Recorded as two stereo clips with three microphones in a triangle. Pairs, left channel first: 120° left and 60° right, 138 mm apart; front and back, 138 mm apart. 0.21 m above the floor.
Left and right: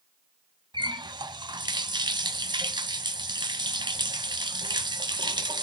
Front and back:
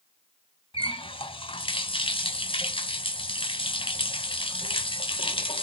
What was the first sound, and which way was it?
A running tap, 20° right.